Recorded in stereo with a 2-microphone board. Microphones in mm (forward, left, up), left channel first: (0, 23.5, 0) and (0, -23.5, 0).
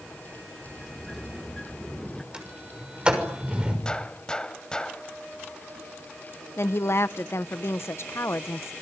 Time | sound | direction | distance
0.6 | a sliding door | 10° left (ahead or behind) | 1.0 m
2.3 | a sliding door | 20° right (ahead or behind) | 6 m
3.9 | a gunshot | 20° left (ahead or behind) | 1.4 m
6.6 | a woman speaking | 65° left (ahead or behind) | 0.9 m